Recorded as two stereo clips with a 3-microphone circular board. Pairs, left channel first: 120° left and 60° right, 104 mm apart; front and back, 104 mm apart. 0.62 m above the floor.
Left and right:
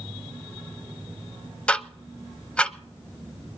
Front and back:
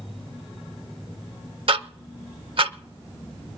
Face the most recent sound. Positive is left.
turn(degrees=-160)